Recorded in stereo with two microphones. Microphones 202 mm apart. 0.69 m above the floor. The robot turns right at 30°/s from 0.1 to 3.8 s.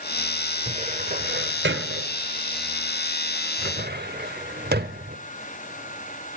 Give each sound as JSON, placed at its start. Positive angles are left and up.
{"t": 0.7, "sound": "a cupboard door", "side_deg": -35, "distance_m": 1.3}